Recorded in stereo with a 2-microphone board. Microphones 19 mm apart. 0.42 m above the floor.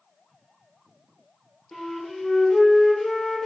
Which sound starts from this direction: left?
A flute, at 1.7 s.